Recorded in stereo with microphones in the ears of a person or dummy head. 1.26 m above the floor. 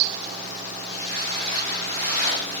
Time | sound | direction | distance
0.9 | footsteps | 50° right (ahead or behind) | 7 m